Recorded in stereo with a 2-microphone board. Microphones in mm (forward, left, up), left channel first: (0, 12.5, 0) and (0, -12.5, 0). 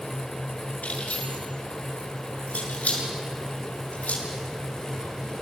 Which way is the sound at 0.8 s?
75° left (ahead or behind).